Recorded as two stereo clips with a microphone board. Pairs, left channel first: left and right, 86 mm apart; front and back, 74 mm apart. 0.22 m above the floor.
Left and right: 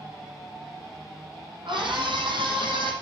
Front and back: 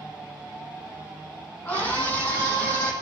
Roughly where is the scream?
Ahead right.